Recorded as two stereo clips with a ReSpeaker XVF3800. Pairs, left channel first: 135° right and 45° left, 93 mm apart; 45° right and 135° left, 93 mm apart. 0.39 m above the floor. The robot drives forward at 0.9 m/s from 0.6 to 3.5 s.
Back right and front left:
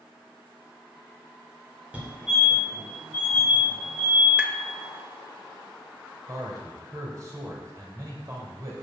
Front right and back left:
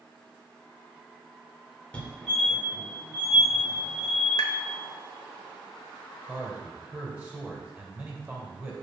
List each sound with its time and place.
1.9 s a fire alarm: straight ahead, 1.9 m; by 4.3 s straight behind, 1.9 m
4.4 s tapping: 30° right, 0.6 m
6.3 s a man speaking: 70° left, 1.7 m